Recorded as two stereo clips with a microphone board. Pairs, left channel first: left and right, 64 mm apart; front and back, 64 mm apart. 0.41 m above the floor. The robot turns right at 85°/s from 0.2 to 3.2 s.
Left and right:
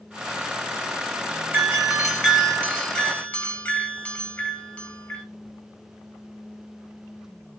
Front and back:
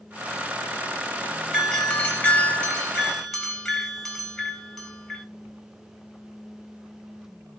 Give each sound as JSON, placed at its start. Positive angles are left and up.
{"t": 1.5, "sound": "a doorbell", "azimuth_deg": -55, "distance_m": 2.0}